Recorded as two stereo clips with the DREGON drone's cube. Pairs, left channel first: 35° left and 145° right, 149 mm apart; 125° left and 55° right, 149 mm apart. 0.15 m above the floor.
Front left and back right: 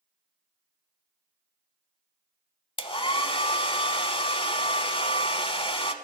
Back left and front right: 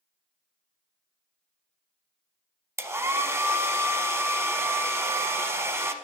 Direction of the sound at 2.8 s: 5° left.